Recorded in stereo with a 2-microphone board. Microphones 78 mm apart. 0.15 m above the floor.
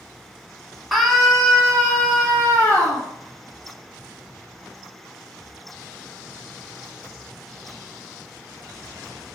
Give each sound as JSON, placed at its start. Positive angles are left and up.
{"t": 0.9, "sound": "a scream", "side_deg": 0, "distance_m": 1.2}